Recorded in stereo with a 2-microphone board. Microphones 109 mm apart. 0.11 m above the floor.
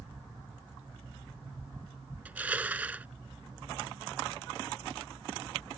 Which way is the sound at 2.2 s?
15° right (ahead or behind).